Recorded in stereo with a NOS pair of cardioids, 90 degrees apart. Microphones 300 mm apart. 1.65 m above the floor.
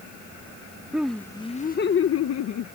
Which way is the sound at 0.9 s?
5° right.